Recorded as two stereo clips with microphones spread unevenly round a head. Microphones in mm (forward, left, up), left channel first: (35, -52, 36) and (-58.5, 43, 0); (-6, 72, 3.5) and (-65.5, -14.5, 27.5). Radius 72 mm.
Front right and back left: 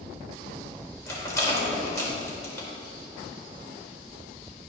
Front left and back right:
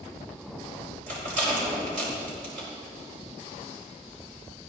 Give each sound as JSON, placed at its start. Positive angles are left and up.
{"t": 1.1, "sound": "a rattle", "azimuth_deg": -120, "distance_m": 5.0}